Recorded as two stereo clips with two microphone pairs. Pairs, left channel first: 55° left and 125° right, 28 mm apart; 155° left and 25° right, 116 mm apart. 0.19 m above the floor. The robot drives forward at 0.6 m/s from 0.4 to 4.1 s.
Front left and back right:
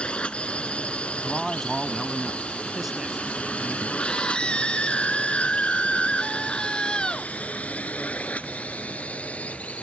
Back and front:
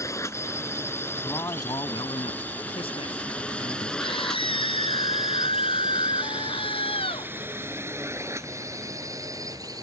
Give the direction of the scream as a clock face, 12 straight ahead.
8 o'clock.